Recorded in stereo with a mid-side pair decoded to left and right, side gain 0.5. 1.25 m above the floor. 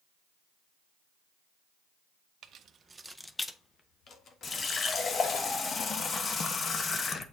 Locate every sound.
2.4 s keys jangling: 65° right, 0.8 m; by 5.4 s 60° left, 2.5 m
4.4 s a running tap: 40° left, 0.8 m